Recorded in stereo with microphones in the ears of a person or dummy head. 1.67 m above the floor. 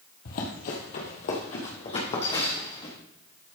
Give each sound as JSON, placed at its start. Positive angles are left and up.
{"t": 0.2, "sound": "running footsteps", "side_deg": 45, "distance_m": 2.5}